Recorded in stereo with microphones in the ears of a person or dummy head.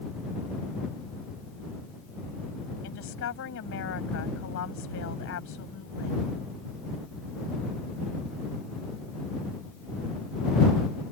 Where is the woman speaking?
80° left.